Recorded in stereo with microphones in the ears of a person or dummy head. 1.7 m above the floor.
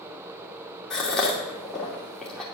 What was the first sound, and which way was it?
A gasp, 5° left (ahead or behind).